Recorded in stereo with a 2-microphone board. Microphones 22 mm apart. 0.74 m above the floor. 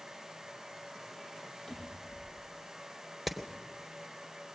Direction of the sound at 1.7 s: 30° left (ahead or behind).